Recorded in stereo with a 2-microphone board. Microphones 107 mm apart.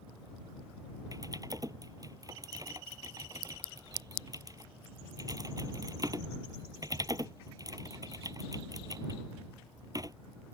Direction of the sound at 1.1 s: 35° right (ahead or behind).